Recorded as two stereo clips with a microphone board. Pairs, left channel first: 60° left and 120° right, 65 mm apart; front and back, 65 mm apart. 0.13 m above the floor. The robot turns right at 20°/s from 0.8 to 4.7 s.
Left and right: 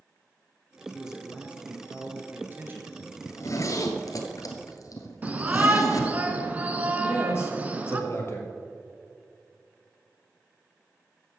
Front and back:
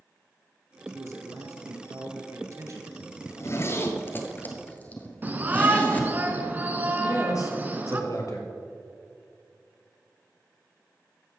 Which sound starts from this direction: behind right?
A shout, at 5.2 s.